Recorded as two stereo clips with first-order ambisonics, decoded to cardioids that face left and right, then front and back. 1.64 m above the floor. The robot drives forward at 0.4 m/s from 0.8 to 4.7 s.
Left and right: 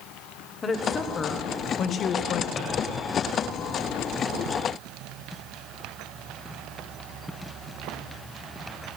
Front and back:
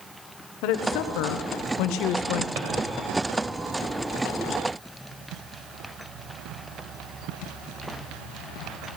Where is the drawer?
155° left, 2.5 m.